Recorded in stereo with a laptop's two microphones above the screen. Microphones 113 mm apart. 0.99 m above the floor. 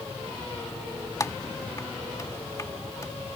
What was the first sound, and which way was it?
Typing on a keyboard, 30° left (ahead or behind).